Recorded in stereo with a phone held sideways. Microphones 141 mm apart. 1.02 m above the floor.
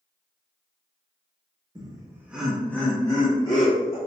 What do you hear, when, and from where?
1.8 s laughter: 30° right (ahead or behind), 0.7 m; by 4.0 s 35° left (ahead or behind), 1.3 m